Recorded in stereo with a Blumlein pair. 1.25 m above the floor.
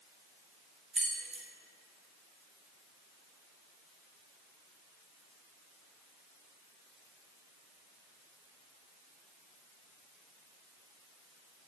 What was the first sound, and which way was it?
Keys jangling, 15° right.